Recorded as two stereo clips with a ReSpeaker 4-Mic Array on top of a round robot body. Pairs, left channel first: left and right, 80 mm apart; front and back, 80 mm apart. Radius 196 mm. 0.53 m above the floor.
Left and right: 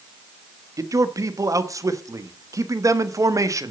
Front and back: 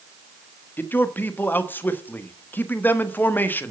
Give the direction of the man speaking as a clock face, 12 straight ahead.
2 o'clock.